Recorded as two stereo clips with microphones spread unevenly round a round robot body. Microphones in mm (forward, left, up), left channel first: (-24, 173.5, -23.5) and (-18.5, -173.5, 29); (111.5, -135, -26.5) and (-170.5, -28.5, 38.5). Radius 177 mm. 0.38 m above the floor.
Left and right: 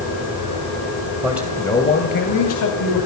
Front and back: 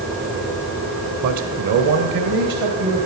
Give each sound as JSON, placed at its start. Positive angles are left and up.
{"t": 1.2, "sound": "a man speaking", "azimuth_deg": -175, "distance_m": 2.5}